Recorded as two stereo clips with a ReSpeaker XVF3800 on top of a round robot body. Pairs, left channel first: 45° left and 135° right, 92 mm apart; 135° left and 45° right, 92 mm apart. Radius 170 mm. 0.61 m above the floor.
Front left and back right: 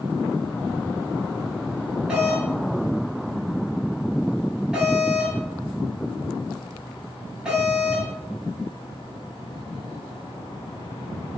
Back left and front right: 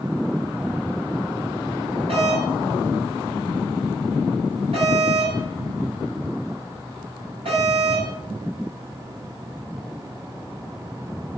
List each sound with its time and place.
2.1 s a doorbell: 55° right, 8.5 m